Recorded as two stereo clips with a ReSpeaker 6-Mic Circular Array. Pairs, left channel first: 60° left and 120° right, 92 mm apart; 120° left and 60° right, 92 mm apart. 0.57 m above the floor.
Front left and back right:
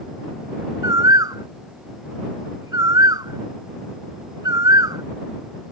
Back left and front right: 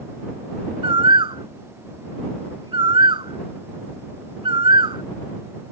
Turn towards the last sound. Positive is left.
turn(degrees=-75)